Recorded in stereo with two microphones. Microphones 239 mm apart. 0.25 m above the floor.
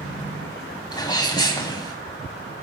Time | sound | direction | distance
0.9 | a sneeze | 20° left (ahead or behind) | 1.2 m